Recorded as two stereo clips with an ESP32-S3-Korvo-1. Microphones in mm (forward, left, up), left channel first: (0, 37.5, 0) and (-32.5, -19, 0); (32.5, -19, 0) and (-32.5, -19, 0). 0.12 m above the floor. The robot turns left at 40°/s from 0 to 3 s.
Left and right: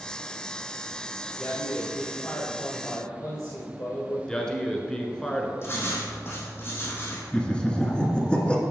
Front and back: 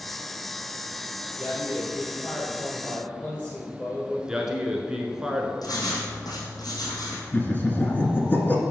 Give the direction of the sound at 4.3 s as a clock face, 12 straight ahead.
8 o'clock.